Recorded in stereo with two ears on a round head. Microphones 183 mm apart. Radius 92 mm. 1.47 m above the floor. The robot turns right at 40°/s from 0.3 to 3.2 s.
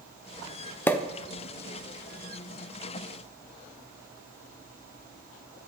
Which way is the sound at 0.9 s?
10° left (ahead or behind).